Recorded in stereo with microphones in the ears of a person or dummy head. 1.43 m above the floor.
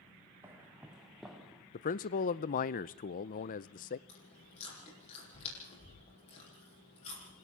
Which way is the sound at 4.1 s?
35° left (ahead or behind).